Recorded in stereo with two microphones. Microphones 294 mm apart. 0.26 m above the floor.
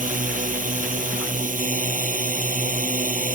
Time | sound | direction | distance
0.0 | a drone | 25° right (ahead or behind) | ?